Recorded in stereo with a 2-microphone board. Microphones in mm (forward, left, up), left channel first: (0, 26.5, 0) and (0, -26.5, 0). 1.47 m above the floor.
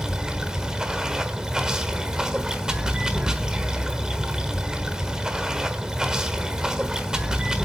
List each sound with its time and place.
0.0 s running water: 15° right (ahead or behind), 1.2 m